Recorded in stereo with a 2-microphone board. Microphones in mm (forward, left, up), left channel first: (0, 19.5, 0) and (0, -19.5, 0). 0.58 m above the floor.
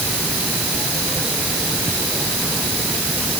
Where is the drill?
I don't hear a drill.